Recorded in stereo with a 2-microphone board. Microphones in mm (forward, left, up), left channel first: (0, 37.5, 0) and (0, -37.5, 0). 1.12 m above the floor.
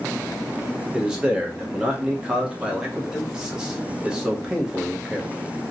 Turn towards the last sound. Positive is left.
turn(degrees=-10)  # may be behind; listen again after turning